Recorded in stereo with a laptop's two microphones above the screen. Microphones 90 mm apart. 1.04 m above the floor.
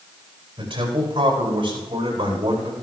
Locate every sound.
0.6 s a man speaking: 60° right (ahead or behind), 9.5 m; by 2.7 s 55° right (ahead or behind), 11 m